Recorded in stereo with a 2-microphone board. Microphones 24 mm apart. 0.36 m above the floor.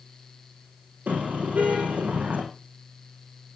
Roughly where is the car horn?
Right.